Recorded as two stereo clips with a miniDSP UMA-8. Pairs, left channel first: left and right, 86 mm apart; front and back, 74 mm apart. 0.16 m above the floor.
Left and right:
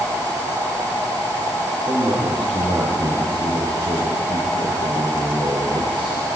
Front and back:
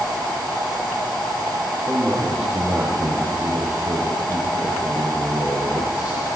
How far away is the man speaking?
About 5.5 m.